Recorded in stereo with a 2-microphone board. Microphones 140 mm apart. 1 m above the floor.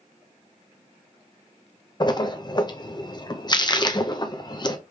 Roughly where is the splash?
Left.